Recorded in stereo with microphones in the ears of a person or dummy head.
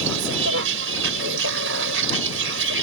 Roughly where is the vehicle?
Right.